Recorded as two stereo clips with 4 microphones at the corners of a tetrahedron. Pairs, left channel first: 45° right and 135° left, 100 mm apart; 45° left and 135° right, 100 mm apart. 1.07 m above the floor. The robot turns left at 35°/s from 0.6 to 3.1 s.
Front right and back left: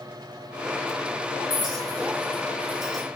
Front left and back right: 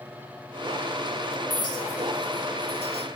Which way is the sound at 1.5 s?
95° left.